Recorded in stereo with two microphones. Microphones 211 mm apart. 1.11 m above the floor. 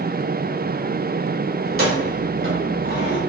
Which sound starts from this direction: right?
Keys jangling, at 1.6 s.